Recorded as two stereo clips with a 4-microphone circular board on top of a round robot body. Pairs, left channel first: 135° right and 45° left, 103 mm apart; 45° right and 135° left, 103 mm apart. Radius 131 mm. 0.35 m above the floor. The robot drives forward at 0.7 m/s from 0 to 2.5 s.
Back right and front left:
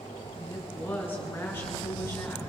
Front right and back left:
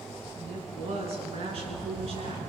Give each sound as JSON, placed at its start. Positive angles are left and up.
{"t": 0.4, "sound": "a woman speaking", "azimuth_deg": 155, "distance_m": 5.5}